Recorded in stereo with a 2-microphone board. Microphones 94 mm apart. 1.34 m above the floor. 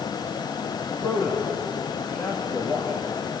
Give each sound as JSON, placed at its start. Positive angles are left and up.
{"t": 0.9, "sound": "a man speaking", "side_deg": 30, "distance_m": 3.0}